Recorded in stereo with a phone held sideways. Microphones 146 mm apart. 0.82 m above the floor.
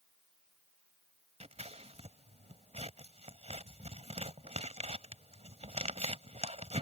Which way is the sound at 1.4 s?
45° right (ahead or behind).